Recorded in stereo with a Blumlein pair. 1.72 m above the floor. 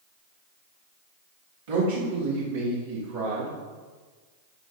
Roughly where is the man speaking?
Ahead right.